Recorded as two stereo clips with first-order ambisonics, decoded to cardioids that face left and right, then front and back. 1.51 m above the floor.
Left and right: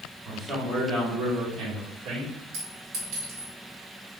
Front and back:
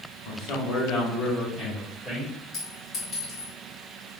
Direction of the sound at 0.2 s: 15° right.